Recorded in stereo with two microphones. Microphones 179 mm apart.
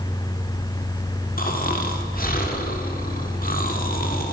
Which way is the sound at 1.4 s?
50° left (ahead or behind).